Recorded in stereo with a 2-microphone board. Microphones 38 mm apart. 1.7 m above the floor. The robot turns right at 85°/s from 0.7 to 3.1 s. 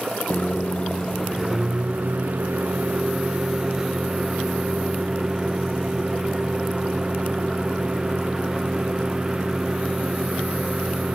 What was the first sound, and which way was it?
A microwave, 130° left.